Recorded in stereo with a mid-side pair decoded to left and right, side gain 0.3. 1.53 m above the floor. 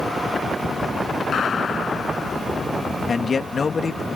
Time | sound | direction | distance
1.3 | a gunshot | 65° left | ?
3.1 | a man speaking | 55° left | ?